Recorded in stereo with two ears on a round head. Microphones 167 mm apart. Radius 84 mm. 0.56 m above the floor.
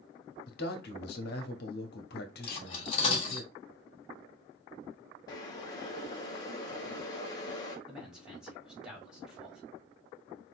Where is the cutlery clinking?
30° left (ahead or behind), 1.5 m.